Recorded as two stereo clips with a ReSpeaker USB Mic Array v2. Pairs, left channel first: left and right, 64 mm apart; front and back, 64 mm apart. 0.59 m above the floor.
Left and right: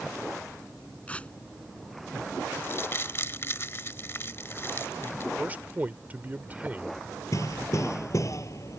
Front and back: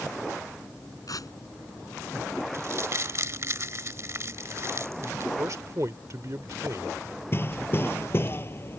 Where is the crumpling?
140° left.